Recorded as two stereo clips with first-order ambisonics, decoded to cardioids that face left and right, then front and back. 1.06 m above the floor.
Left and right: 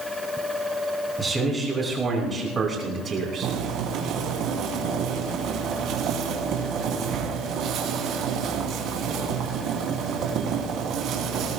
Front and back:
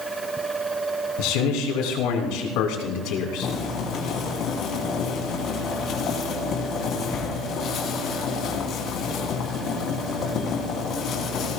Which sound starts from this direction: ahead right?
Boiling, at 3.4 s.